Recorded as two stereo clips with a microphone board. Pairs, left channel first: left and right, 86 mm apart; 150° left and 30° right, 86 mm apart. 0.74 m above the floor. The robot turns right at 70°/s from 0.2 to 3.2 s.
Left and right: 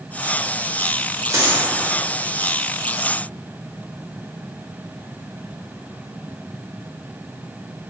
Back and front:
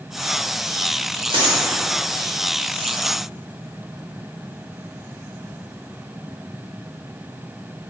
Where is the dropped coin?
40° right, 0.8 m; by 1.6 s 15° right, 0.8 m.